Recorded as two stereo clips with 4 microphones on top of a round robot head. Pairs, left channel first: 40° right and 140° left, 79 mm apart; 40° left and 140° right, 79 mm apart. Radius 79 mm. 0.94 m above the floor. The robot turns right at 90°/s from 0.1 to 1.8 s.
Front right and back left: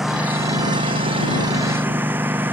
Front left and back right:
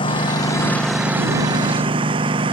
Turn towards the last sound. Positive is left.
turn(degrees=-155)